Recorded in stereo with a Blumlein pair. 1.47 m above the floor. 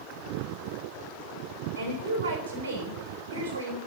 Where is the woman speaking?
65° right, 7 m.